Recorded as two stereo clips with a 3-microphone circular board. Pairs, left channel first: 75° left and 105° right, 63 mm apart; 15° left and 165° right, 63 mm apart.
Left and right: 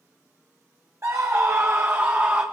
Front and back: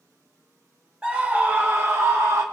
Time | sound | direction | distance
1.0 | a scream | 95° right | 0.9 m